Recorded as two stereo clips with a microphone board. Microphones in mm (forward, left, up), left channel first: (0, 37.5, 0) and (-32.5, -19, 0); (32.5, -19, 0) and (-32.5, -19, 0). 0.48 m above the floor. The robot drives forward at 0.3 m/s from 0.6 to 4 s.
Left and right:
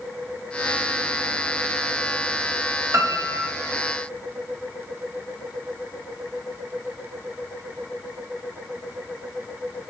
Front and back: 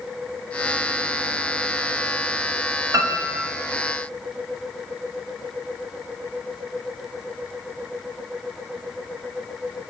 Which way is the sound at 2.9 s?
155° right.